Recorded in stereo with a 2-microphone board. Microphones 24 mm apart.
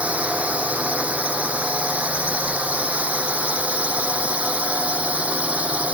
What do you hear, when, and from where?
0.0 s a drone: 75° right (ahead or behind); by 6.0 s 70° right (ahead or behind)